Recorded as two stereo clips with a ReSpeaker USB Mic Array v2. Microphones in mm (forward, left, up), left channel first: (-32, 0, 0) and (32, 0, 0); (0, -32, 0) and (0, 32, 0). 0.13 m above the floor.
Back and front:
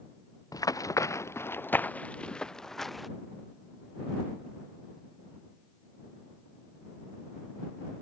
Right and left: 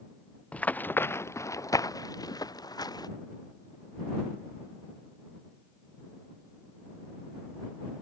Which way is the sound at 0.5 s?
160° right.